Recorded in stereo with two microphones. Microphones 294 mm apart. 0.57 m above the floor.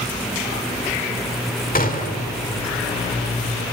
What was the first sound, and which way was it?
A gunshot, 30° left (ahead or behind).